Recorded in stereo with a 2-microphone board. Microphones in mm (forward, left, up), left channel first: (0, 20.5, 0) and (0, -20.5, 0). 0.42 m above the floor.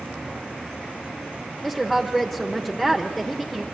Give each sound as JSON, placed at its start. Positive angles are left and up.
{"t": 1.6, "sound": "a woman speaking", "side_deg": 5, "distance_m": 1.1}